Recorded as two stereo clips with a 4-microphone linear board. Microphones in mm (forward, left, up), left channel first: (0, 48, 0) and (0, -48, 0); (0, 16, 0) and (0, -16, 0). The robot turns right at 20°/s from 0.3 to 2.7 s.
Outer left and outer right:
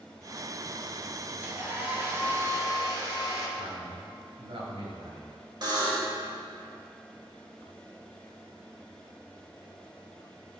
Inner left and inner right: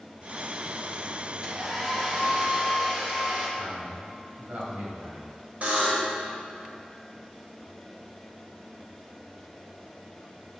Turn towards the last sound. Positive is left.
turn(degrees=-50)  # may be behind; listen again after turning